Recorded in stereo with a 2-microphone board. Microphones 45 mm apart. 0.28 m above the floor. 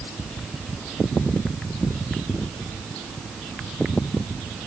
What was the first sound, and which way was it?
Only background noise.